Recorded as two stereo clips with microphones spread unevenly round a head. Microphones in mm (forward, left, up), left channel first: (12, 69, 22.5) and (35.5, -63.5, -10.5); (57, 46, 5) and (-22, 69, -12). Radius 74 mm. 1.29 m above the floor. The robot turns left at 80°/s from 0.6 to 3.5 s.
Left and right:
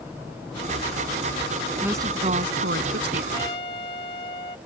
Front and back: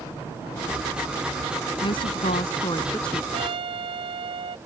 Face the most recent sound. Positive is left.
turn(degrees=155)